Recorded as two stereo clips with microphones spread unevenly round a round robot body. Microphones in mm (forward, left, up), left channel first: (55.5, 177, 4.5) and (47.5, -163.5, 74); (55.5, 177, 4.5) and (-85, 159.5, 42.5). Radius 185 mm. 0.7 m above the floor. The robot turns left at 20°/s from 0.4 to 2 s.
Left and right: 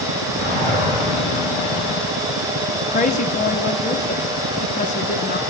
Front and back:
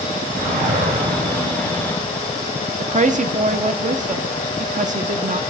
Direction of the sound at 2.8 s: 150° left.